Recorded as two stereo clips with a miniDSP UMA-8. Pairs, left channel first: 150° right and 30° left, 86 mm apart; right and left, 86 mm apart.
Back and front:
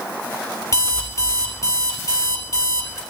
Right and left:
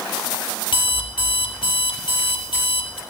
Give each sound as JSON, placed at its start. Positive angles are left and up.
{"t": 0.7, "sound": "an alarm clock", "azimuth_deg": -100, "distance_m": 3.5}